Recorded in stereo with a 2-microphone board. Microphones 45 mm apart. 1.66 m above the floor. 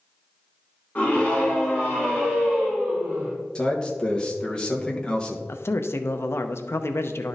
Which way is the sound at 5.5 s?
70° left (ahead or behind).